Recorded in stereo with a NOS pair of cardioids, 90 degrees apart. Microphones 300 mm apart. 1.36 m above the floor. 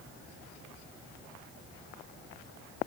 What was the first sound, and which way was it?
Only background noise.